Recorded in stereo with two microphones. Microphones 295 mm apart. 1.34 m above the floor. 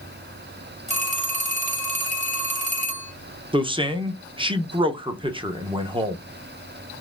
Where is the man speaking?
15° right (ahead or behind), 0.7 m.